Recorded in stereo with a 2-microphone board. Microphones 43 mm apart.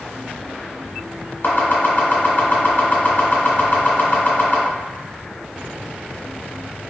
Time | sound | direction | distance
1.4 | chopping | 50° left (ahead or behind) | 1.2 m